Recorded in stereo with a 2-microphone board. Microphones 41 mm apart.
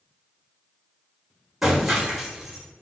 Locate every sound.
1.6 s breaking glass: 5° right (ahead or behind), 1.3 m